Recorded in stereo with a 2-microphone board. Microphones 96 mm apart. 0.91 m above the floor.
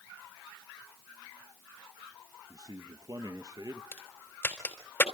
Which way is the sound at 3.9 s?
25° left (ahead or behind).